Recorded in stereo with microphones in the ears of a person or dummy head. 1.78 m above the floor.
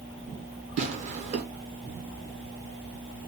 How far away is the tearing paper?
About 1.1 m.